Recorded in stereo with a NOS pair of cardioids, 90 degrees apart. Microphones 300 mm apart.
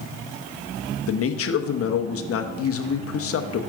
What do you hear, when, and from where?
1.1 s a man speaking: 50° left, 1.0 m